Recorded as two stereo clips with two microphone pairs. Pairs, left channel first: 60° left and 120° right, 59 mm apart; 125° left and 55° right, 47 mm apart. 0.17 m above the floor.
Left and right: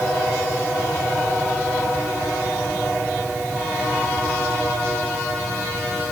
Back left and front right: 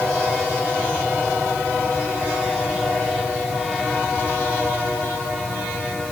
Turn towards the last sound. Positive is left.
No sound to turn to.